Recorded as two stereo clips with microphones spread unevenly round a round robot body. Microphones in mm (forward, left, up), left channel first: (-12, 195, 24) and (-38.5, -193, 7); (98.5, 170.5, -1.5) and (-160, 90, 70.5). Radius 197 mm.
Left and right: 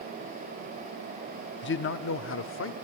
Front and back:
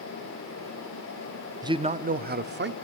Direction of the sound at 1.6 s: 105° left.